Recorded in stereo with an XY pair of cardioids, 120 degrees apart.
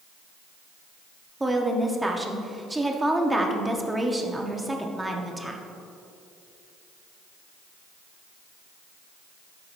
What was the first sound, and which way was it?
A woman speaking, 10° right.